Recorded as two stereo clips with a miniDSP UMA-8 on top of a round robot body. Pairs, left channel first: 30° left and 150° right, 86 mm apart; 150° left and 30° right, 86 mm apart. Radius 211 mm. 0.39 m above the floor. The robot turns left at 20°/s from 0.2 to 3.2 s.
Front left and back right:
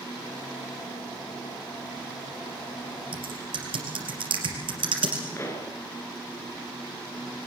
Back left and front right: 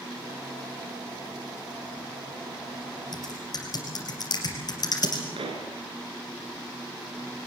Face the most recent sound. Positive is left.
turn(degrees=-30)